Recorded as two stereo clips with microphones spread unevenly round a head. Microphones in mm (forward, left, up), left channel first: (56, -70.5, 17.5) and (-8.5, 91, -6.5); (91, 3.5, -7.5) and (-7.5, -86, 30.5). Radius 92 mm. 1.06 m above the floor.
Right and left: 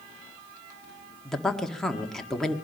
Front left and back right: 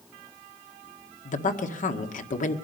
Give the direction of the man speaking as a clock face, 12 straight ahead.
11 o'clock.